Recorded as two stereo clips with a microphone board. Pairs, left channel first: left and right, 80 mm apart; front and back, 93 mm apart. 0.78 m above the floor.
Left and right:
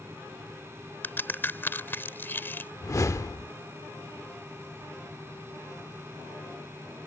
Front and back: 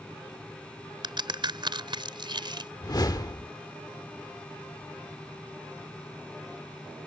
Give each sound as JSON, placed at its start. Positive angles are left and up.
{"t": 1.0, "sound": "a crack", "azimuth_deg": 150}
{"t": 2.8, "sound": "a whoosh", "azimuth_deg": 45}